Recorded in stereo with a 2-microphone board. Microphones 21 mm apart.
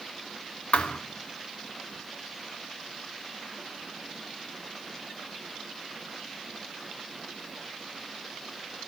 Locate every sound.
0.7 s a thud: 80° left, 1.2 m